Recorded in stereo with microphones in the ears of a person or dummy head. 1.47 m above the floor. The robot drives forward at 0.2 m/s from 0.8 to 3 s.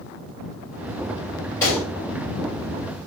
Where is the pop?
10° left (ahead or behind), 1.6 m.